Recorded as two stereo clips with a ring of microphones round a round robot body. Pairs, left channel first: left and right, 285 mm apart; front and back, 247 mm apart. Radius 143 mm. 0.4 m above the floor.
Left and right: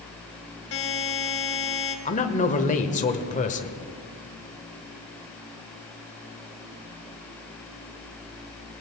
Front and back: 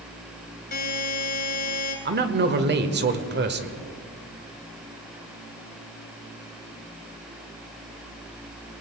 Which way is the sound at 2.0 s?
150° left.